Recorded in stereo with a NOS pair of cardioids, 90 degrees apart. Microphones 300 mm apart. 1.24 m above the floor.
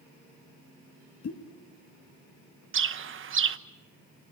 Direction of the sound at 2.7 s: 40° right.